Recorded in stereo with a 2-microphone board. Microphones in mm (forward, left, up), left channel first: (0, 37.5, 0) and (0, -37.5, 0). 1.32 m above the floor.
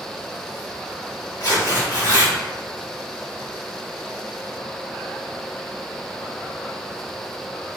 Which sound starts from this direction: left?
Tearing paper, at 1.4 s.